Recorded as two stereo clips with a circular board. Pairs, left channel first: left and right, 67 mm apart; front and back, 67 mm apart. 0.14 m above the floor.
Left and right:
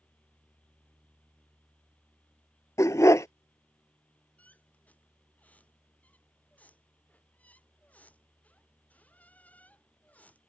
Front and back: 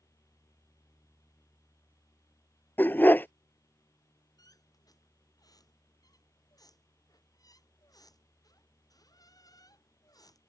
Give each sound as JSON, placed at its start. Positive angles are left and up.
{"t": 2.8, "sound": "a dog barking", "azimuth_deg": 55}
{"t": 4.4, "sound": "a squeak", "azimuth_deg": 20}